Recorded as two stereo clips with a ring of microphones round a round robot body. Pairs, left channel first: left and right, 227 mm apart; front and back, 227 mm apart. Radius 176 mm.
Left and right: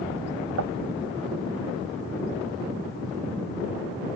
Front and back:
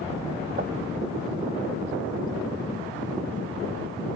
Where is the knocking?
115° right.